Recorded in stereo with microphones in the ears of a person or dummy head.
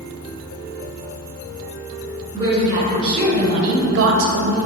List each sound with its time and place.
2.3 s a woman speaking: 15° right (ahead or behind), 1.7 m; by 4.6 s 60° right (ahead or behind), 0.6 m